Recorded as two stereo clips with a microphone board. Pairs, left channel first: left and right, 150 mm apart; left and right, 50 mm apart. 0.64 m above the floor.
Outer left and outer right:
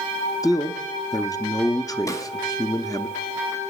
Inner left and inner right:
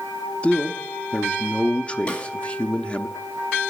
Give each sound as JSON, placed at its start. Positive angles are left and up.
{"t": 0.4, "sound": "a man speaking", "side_deg": 25, "distance_m": 0.6}
{"t": 2.1, "sound": "a snare drum", "side_deg": 20, "distance_m": 1.4}